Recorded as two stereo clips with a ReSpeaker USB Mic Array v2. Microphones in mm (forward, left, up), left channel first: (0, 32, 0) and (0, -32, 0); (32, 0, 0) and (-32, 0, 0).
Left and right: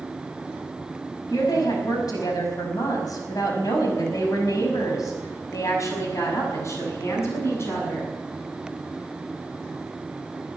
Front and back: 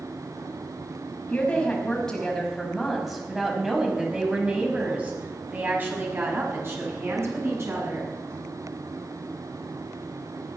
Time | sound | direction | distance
1.3 | a woman speaking | 75° left | 5.5 m